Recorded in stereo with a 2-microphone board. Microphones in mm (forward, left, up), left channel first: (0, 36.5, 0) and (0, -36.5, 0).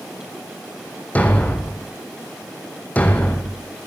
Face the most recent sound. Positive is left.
turn(degrees=20)  # may be behind; listen again after turning